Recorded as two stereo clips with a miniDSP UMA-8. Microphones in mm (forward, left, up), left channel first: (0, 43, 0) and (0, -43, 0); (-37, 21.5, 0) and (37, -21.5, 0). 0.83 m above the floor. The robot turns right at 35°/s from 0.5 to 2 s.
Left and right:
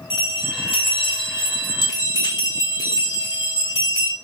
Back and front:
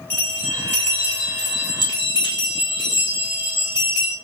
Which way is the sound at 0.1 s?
80° left.